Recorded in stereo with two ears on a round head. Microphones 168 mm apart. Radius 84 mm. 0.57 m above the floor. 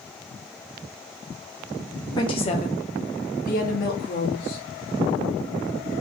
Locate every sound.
2.2 s a woman speaking: 20° left (ahead or behind), 0.7 m; by 4.6 s 50° left (ahead or behind), 1.6 m